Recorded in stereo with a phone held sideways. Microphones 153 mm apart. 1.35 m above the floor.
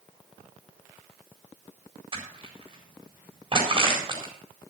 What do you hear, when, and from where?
2.1 s crushing: 35° right (ahead or behind), 4.5 m